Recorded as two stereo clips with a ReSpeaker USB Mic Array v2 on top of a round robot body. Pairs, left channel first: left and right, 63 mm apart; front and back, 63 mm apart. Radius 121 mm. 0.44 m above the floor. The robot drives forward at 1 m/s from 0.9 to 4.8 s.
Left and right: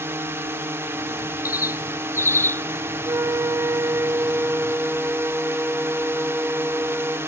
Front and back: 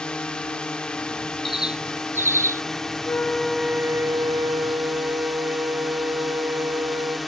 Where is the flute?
50° right; by 7.2 s 160° right.